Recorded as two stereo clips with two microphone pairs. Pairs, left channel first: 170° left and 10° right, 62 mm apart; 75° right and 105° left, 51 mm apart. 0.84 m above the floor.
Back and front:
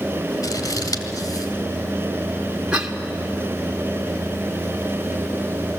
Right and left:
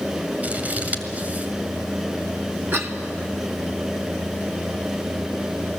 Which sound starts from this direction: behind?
Scissors, at 0.4 s.